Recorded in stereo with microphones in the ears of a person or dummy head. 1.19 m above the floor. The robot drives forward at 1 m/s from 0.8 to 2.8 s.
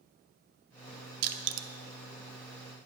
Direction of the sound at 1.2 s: 50° right (ahead or behind).